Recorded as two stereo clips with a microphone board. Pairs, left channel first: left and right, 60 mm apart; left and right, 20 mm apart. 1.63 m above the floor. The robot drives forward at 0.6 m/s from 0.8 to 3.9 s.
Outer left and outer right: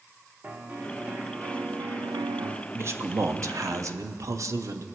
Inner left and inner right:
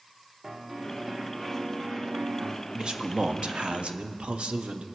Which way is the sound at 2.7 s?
45° right (ahead or behind).